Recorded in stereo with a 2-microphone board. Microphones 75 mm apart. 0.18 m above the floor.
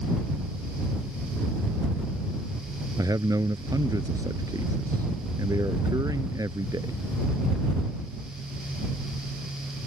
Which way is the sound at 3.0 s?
55° right (ahead or behind).